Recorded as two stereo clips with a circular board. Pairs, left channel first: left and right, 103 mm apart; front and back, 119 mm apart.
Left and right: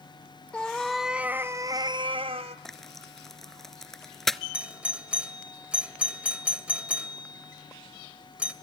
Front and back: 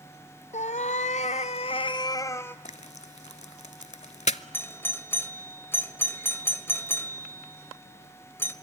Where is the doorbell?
30° right, 1.8 m.